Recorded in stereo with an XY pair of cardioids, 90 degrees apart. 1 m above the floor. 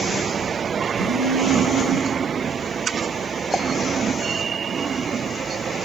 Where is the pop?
10° right, 0.6 m.